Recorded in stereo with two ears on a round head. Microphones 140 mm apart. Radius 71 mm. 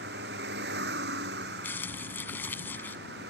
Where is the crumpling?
15° left (ahead or behind).